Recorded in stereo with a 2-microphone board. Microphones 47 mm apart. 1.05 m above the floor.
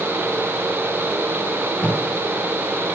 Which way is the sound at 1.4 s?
35° left (ahead or behind).